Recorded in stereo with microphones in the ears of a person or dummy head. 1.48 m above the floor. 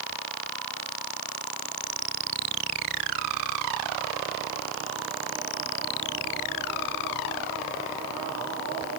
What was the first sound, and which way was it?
Only background noise.